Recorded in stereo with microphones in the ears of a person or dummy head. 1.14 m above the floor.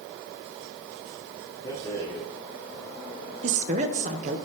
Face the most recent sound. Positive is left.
turn(degrees=-40)  # may be behind; listen again after turning